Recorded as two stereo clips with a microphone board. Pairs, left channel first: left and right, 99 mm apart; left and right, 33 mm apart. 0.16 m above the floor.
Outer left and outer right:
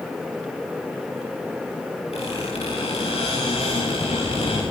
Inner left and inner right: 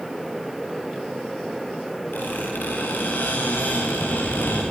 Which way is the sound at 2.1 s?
85° left.